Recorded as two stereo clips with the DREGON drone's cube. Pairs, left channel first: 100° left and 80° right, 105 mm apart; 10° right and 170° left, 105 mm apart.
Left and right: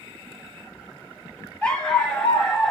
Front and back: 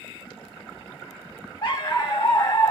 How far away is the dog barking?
About 2.5 m.